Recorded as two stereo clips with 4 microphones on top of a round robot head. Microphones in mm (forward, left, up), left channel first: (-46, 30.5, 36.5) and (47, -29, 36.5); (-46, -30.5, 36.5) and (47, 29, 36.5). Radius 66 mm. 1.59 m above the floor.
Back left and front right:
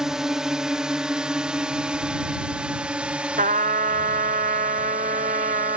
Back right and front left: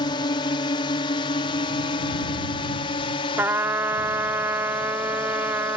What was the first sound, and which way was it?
A drone, 115° right.